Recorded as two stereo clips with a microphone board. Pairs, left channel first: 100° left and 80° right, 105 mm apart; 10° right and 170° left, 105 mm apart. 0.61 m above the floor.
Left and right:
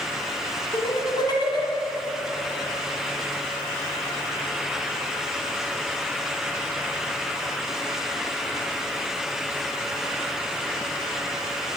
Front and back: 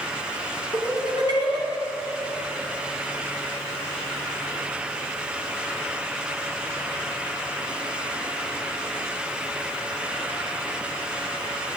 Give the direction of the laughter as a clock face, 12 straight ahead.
7 o'clock.